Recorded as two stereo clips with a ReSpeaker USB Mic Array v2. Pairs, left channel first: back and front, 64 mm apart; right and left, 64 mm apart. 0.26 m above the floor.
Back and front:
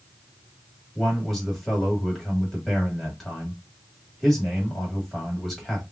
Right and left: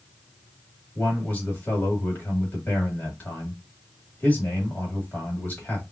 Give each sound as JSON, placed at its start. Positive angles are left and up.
{"t": 0.9, "sound": "a man speaking", "azimuth_deg": -95, "distance_m": 1.7}